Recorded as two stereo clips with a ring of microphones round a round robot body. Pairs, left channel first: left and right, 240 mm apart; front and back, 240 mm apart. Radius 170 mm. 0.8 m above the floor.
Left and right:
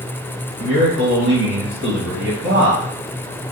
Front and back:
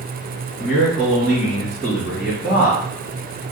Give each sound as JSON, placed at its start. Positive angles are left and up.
{"t": 0.6, "sound": "a man speaking", "azimuth_deg": -90, "distance_m": 1.3}